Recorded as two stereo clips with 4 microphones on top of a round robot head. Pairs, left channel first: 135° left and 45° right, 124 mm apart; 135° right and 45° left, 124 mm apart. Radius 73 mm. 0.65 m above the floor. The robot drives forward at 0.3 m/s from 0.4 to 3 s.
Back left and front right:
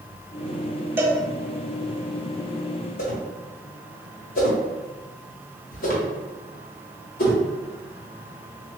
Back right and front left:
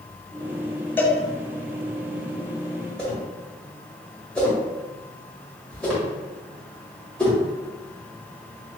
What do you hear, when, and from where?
1.0 s a cowbell: 85° right, 0.8 m; by 1.2 s 100° right, 0.8 m
3.0 s a whoosh: 145° left, 1.5 m